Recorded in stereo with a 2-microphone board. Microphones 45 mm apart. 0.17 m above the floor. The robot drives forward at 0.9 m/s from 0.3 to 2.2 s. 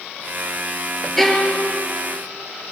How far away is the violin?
About 3.5 m.